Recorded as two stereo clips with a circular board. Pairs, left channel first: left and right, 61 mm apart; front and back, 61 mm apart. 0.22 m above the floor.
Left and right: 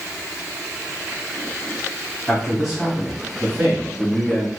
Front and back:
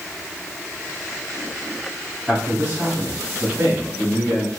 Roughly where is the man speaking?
Behind.